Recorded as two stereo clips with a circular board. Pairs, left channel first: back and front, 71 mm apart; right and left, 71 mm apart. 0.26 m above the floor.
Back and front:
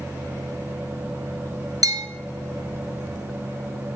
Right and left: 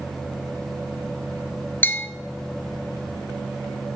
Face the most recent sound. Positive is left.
turn(degrees=-30)